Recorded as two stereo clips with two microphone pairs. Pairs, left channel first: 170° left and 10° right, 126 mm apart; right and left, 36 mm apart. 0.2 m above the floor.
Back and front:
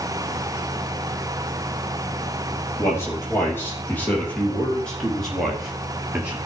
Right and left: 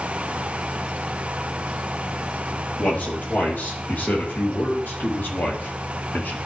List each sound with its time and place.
2.8 s a man speaking: 120° right, 5 m; by 6.4 s 85° right, 3 m